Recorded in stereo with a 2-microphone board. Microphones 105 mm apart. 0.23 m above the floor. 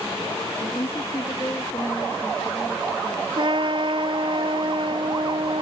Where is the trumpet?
55° right (ahead or behind).